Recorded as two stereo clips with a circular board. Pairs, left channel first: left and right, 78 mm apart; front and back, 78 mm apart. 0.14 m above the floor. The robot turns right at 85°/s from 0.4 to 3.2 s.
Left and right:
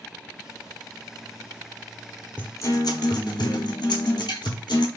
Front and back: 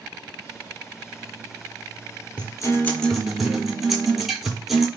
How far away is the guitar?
About 0.7 m.